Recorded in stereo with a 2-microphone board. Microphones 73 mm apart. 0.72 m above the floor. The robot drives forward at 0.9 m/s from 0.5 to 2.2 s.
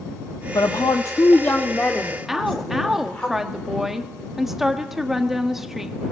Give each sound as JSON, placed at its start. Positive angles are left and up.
{"t": 0.6, "sound": "a woman speaking", "side_deg": 60, "distance_m": 0.7}
{"t": 2.3, "sound": "a woman speaking", "side_deg": -5, "distance_m": 1.3}